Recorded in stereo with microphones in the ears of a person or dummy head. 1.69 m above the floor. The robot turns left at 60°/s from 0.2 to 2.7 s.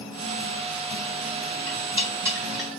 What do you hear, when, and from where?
1.7 s cutlery clinking: 55° right (ahead or behind), 2.5 m; by 2.7 s centre (ahead or behind), 2.5 m